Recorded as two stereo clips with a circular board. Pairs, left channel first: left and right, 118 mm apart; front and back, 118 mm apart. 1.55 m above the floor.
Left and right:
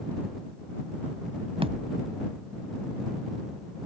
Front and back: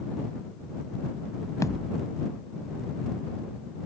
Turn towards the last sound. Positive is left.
turn(degrees=-60)